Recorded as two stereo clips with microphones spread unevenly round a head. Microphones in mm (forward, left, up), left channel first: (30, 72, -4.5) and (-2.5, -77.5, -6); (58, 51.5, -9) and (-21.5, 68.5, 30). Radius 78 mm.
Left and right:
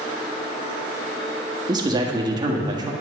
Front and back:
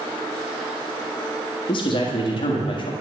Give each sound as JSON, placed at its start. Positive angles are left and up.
{"t": 1.7, "sound": "a man speaking", "azimuth_deg": -40, "distance_m": 1.5}